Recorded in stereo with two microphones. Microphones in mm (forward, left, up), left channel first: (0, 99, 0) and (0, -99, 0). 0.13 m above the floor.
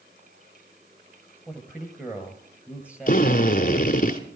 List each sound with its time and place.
1.5 s a man speaking: 5° right (ahead or behind), 2.5 m
3.1 s a drill: 45° left (ahead or behind), 1.2 m